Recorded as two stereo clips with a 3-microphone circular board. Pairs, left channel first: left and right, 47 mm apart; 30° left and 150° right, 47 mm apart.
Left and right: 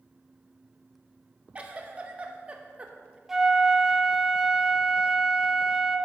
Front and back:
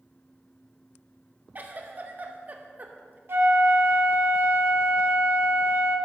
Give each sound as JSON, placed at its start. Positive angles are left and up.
{"t": 1.6, "sound": "a giggle", "azimuth_deg": -135, "distance_m": 0.8}
{"t": 3.3, "sound": "a flute", "azimuth_deg": -165, "distance_m": 0.8}